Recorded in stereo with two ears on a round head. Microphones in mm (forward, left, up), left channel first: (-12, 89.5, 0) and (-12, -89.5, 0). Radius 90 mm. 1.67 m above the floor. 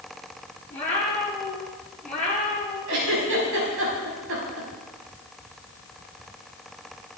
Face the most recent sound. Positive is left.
turn(degrees=-75)  # may be behind; listen again after turning